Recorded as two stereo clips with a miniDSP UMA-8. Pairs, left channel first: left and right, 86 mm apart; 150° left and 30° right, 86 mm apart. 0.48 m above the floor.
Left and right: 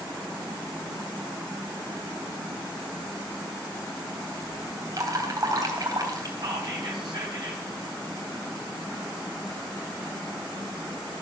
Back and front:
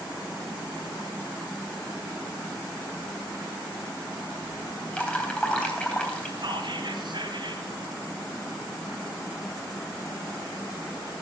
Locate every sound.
4.9 s dripping: 135° right, 3.5 m
6.4 s whispering: 50° right, 3 m